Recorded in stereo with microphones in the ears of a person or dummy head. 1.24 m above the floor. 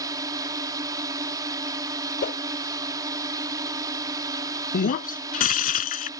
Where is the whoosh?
45° left (ahead or behind).